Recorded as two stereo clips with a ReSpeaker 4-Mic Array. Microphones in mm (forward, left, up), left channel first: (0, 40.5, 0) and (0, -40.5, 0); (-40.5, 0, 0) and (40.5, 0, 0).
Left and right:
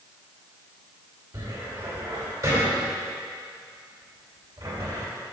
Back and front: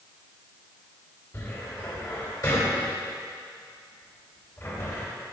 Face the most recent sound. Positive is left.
turn(degrees=-130)